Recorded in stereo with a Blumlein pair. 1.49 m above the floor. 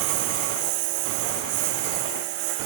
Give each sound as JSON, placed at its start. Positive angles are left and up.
{"t": 0.0, "sound": "a lawn mower", "azimuth_deg": -45}